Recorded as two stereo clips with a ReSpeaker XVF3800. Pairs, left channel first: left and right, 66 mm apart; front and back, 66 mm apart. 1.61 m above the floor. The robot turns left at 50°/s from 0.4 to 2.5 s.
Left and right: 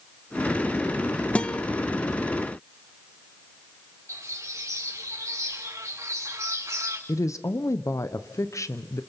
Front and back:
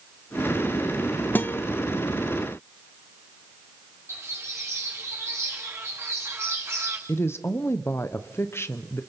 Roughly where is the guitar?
Ahead left.